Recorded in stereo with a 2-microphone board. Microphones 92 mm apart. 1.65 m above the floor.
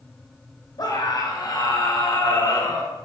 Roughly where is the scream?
Left.